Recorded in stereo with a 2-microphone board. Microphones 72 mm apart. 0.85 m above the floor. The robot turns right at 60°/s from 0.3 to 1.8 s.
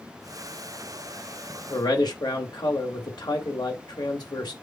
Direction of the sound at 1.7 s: 70° left (ahead or behind).